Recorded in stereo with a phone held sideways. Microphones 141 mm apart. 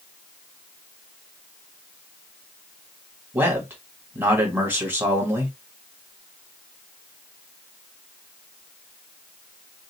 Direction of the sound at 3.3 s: 15° right (ahead or behind).